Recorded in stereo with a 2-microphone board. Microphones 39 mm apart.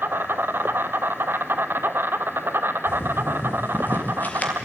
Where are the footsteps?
70° left (ahead or behind), 4 m; by 4.5 s 35° left (ahead or behind), 3 m.